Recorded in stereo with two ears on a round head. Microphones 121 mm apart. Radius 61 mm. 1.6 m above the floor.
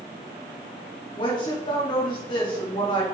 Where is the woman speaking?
35° left (ahead or behind), 2.5 m.